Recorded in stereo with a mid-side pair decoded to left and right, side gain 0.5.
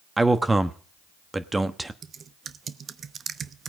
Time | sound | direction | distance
0.2 | a man speaking | 15° right | 1.1 m
2.0 | typing on a keyboard | 45° right | 0.7 m